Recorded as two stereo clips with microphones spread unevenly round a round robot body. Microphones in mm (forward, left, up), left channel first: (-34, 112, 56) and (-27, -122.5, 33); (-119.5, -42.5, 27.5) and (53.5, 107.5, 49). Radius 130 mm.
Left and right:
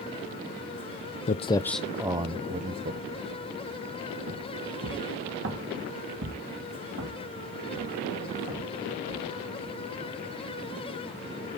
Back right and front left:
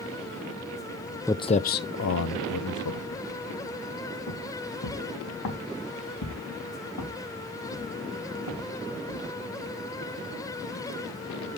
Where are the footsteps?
140° left, 0.5 m; by 9.3 s 120° right, 4.5 m.